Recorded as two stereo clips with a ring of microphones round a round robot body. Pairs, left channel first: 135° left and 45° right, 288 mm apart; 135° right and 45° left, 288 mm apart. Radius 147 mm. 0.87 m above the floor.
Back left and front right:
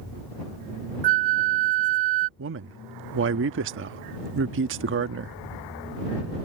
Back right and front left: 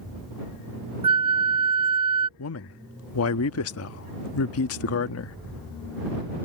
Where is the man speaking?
95° right.